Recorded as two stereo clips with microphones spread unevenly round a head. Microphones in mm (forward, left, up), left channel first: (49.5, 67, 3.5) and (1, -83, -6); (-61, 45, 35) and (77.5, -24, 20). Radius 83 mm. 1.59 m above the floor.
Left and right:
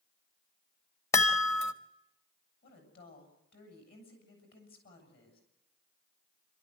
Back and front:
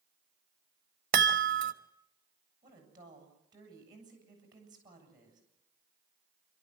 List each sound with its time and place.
1.1 s a chime: 5° left, 1.3 m
2.6 s a woman speaking: 40° left, 7.5 m